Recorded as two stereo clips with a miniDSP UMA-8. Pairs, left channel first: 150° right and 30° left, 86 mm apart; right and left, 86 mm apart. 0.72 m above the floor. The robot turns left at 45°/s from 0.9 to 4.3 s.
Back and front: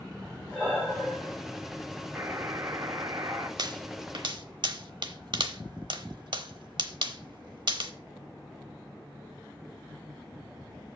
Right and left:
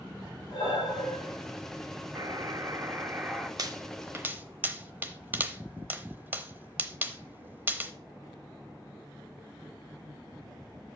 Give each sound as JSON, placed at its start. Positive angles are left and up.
{"t": 0.5, "sound": "breathing", "azimuth_deg": -60, "distance_m": 4.5}
{"t": 2.1, "sound": "a buzzer", "azimuth_deg": 80, "distance_m": 1.1}
{"t": 3.6, "sound": "a pop", "azimuth_deg": 55, "distance_m": 0.8}